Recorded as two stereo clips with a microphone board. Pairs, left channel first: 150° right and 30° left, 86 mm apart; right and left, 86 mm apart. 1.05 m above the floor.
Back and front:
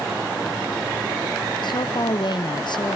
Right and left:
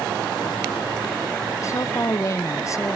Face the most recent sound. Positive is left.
turn(degrees=-140)